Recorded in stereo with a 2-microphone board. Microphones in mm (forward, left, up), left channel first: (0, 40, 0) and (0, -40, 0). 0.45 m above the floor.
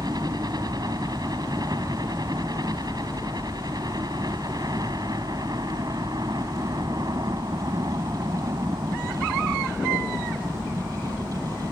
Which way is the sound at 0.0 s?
55° right (ahead or behind).